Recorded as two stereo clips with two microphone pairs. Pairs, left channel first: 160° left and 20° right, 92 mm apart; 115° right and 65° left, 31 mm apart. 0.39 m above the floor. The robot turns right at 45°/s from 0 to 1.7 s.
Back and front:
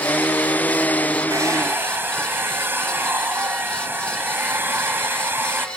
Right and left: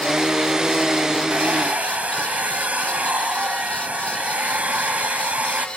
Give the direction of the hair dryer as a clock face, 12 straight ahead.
11 o'clock.